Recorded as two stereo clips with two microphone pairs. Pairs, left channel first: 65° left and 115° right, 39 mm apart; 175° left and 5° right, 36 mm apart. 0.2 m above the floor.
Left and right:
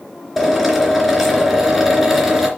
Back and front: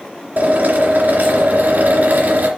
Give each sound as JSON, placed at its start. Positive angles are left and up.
{"t": 0.4, "sound": "a drill", "azimuth_deg": -20, "distance_m": 3.0}